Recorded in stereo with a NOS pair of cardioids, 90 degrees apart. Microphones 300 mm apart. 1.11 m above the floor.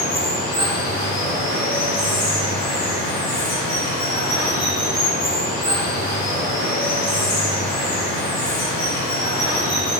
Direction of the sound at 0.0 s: 70° left.